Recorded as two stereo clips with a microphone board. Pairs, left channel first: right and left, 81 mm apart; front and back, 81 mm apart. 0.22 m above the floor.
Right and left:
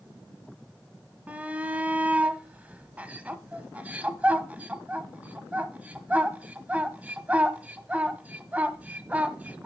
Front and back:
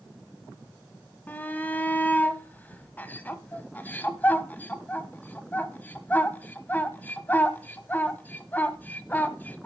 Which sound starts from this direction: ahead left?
A shout, at 1.3 s.